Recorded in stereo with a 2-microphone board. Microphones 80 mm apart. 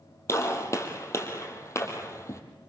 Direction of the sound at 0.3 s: 40° left (ahead or behind).